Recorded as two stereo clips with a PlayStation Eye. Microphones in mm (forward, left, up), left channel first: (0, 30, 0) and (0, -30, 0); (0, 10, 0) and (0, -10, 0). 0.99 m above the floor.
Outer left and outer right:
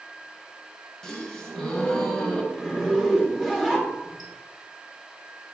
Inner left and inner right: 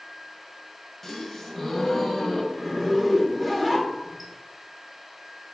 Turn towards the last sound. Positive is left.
turn(degrees=-5)  # may be behind; listen again after turning